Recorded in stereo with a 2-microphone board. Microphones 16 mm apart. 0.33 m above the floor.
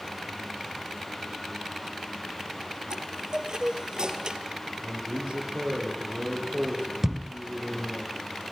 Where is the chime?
50° right (ahead or behind), 2 m.